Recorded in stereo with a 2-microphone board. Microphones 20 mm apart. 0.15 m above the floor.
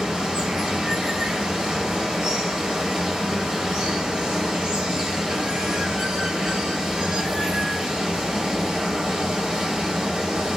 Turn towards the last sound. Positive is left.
turn(degrees=-45)  # may be behind; listen again after turning